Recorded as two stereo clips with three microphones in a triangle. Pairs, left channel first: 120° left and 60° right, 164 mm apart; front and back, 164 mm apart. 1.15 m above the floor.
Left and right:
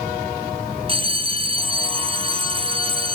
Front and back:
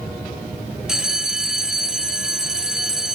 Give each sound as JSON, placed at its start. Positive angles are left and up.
{"t": 0.9, "sound": "a bell", "azimuth_deg": -95, "distance_m": 0.6}